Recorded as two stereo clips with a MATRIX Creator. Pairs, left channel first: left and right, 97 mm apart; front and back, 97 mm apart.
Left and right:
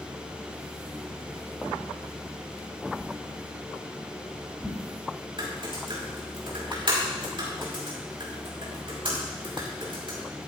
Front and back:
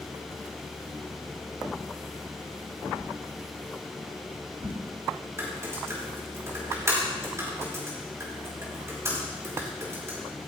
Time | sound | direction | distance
3.0 | a whoosh | straight behind | 3.5 m
5.4 | typing on a keyboard | 120° right | 5.5 m